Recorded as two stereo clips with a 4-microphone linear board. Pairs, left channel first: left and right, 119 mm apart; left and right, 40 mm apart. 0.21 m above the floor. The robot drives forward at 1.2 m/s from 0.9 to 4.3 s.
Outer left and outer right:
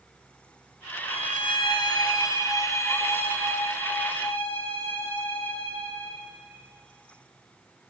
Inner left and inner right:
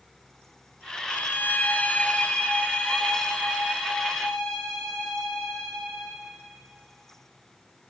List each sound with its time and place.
1.1 s a violin: 60° left (ahead or behind), 1.2 m; by 6.2 s 15° left (ahead or behind), 4.5 m